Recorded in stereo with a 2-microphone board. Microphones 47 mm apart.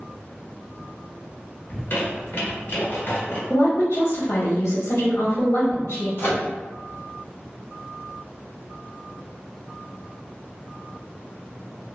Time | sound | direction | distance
1.7 | a squeak | 50° left (ahead or behind) | 1.3 m
3.5 | a woman speaking | 60° left (ahead or behind) | 1.0 m
6.2 | a microwave | 55° left (ahead or behind) | 0.8 m